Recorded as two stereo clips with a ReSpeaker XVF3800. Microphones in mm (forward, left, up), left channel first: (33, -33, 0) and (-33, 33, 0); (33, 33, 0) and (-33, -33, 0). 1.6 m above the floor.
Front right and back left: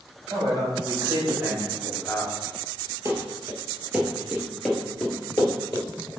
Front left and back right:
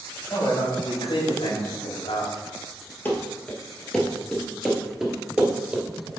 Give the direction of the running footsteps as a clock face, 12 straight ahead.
9 o'clock.